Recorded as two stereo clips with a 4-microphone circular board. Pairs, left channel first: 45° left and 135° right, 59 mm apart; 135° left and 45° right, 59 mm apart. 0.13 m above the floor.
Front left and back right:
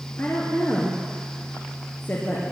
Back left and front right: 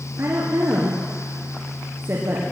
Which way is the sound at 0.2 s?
5° right.